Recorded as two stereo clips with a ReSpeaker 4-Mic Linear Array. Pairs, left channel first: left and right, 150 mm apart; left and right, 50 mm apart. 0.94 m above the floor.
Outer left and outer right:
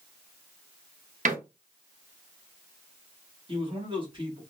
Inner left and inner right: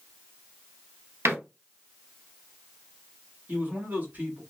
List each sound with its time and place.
1.2 s a door slam: 60° right (ahead or behind), 1.0 m
3.5 s a man speaking: 35° right (ahead or behind), 1.5 m